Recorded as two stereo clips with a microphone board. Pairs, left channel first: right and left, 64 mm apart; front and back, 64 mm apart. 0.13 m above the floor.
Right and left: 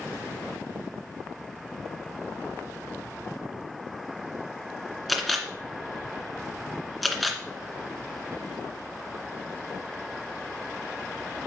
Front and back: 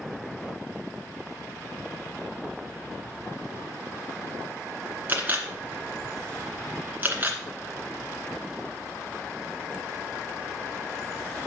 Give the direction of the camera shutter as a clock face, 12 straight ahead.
6 o'clock.